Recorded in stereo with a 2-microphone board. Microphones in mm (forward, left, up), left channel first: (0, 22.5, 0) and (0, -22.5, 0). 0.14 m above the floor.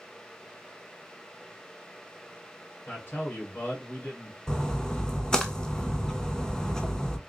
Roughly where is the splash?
Centre.